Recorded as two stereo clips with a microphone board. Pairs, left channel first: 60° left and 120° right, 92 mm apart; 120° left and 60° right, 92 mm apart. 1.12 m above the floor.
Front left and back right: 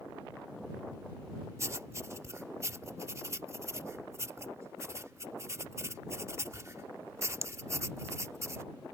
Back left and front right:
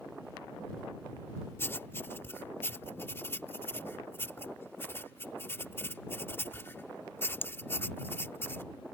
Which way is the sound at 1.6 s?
175° right.